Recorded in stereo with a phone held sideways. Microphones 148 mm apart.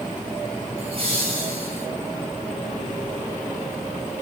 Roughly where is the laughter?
Right.